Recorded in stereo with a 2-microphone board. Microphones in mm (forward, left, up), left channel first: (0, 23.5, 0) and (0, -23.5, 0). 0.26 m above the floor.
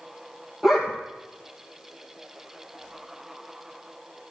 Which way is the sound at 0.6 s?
10° right (ahead or behind).